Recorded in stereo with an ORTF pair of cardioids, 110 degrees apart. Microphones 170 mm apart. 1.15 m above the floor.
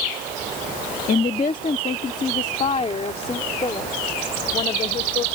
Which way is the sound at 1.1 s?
55° left.